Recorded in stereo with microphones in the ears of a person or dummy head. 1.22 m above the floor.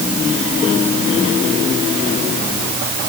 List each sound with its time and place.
Only background noise.